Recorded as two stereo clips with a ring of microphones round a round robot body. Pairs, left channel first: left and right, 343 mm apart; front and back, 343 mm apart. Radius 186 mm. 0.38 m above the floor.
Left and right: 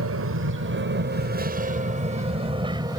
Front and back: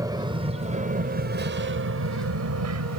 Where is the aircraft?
105° right; by 3.0 s 165° right.